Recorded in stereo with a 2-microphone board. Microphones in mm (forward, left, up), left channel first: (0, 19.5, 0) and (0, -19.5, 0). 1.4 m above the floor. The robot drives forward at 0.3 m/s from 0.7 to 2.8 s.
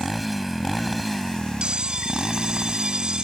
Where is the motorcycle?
Centre (ahead or behind).